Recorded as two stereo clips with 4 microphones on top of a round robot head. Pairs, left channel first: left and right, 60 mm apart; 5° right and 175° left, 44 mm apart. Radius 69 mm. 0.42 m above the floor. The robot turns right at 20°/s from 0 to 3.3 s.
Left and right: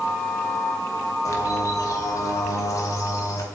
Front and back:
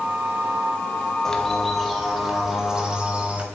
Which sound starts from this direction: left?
A bird, at 1.2 s.